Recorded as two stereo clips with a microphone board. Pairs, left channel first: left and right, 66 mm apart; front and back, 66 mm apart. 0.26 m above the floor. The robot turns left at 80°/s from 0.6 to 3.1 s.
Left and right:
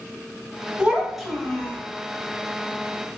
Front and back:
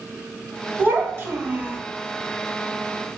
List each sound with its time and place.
0.8 s a child speaking: 145° right, 0.9 m; by 1.8 s 135° left, 0.9 m